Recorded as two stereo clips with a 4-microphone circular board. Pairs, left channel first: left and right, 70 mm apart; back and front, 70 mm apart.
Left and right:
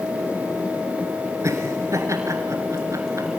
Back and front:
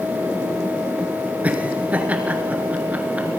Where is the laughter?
65° right, 2 m.